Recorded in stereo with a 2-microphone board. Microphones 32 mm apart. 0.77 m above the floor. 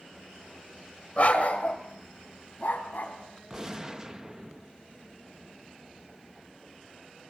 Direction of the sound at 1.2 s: 45° left (ahead or behind).